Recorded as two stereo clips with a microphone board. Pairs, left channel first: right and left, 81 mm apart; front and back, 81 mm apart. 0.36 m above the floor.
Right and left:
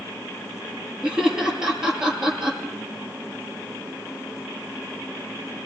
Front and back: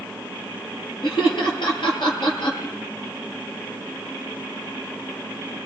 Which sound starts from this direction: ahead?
Laughter, at 1.0 s.